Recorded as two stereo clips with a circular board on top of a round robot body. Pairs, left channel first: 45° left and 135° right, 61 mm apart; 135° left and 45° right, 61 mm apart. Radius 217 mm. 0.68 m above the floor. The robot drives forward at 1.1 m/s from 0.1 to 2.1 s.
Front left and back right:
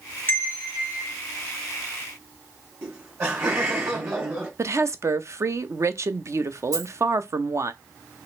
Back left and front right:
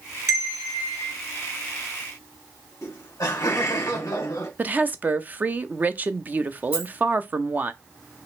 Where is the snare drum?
No snare drum in this recording.